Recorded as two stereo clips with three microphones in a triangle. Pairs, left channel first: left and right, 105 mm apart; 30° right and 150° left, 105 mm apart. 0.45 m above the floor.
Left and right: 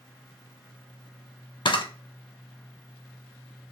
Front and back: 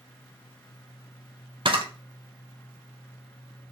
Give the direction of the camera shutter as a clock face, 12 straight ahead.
8 o'clock.